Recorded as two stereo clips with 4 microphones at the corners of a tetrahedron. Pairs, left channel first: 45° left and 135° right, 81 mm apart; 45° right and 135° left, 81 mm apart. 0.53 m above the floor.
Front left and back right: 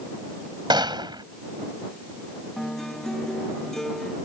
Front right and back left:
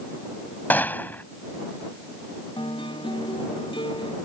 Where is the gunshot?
110° right.